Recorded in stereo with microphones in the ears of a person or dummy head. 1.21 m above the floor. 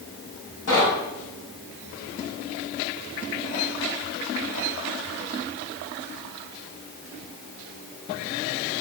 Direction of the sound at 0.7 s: 80° left.